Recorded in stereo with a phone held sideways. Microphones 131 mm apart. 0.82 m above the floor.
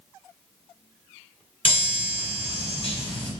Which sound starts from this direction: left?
A chime, at 1.6 s.